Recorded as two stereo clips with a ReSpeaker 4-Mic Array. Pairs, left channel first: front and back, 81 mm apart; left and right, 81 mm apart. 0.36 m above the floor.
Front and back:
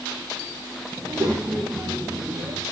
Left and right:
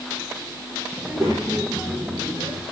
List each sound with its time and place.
1.0 s a child speaking: 140° right, 5.5 m